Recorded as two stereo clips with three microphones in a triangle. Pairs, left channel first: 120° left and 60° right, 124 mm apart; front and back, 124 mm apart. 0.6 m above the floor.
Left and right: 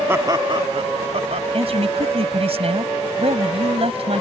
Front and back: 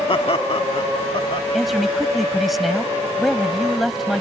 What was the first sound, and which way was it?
Laughter, 5° left.